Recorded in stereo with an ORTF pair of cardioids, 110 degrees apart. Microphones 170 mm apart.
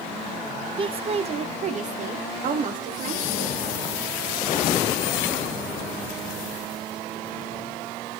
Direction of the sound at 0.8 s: 30° right.